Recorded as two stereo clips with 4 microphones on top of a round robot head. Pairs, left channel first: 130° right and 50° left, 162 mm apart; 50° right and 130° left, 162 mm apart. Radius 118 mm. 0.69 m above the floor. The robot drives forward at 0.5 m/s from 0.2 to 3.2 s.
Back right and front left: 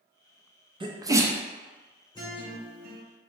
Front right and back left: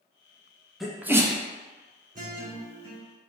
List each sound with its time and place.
0.8 s a sneeze: 40° left, 0.6 m; by 1.4 s 120° left, 0.6 m
2.1 s a guitar: 165° left, 1.8 m; by 3.0 s 170° left, 2 m